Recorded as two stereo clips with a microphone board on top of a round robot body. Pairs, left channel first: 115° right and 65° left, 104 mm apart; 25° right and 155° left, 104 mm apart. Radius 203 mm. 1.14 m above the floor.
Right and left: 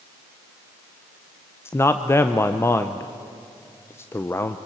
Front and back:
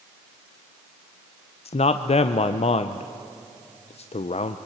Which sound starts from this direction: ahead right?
A man speaking, at 1.6 s.